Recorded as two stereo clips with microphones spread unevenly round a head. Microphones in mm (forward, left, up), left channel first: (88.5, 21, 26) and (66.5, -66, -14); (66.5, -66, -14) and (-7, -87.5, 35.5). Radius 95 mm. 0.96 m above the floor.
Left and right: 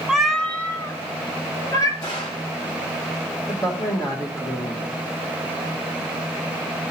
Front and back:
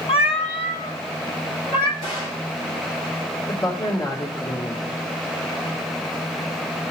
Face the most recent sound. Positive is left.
turn(degrees=10)